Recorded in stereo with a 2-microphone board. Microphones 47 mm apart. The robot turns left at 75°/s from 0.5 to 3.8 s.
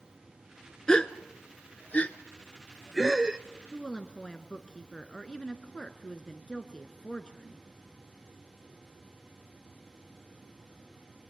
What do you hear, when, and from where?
0.9 s a gasp: 15° left (ahead or behind), 0.6 m; by 3.4 s 20° right (ahead or behind), 0.6 m
3.7 s a woman speaking: 20° left (ahead or behind), 1.1 m